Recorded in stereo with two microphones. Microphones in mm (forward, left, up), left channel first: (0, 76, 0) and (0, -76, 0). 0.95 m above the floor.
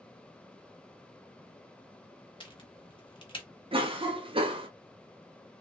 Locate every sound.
2.4 s a crack: 35° left (ahead or behind), 0.8 m
3.7 s a cough: 35° right (ahead or behind), 0.6 m